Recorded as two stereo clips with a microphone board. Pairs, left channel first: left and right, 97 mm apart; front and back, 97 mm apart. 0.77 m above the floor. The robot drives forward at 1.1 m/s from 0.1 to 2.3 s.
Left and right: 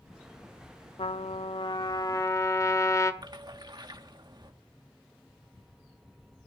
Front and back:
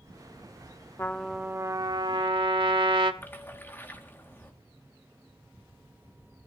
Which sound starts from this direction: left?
A trumpet, at 1.0 s.